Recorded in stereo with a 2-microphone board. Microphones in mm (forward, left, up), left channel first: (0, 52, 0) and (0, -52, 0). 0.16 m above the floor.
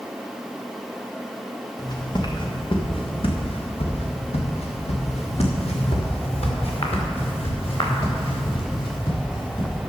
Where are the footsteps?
40° left (ahead or behind), 2.5 m; by 9.8 s 50° left (ahead or behind), 5 m.